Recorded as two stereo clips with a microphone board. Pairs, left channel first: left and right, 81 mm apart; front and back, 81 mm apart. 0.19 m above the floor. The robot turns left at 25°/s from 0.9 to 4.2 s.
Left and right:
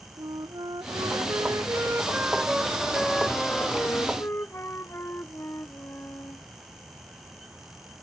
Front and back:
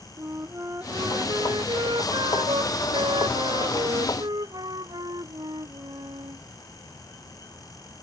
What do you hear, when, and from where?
0.2 s a flute: 125° right; by 6.4 s 150° left